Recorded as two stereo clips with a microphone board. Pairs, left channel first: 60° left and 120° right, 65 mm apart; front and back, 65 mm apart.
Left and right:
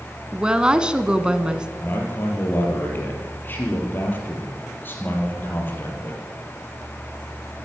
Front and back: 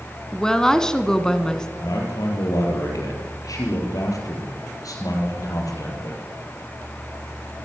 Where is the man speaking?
5° left, 5 m.